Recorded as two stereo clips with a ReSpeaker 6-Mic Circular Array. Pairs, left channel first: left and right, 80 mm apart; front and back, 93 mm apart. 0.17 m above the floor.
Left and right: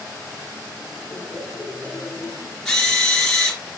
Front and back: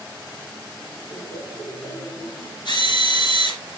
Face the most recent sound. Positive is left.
turn(degrees=10)